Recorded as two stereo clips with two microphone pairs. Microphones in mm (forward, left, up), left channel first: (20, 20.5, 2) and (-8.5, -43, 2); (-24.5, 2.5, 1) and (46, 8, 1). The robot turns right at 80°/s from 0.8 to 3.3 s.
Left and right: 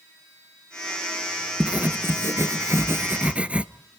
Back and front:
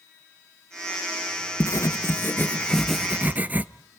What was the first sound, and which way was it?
Writing, 175° left.